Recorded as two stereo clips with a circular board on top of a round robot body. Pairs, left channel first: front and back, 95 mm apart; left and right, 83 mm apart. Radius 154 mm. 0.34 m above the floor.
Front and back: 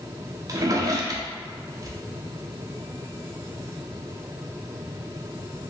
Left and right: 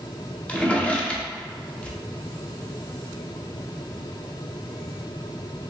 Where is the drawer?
160° left, 0.8 m.